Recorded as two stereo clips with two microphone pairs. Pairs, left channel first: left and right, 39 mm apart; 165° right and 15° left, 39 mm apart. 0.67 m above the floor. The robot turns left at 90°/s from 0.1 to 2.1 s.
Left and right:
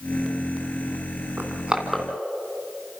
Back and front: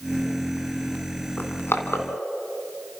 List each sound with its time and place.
1.4 s crushing: 125° right, 2.5 m; by 2.1 s 175° left, 2.5 m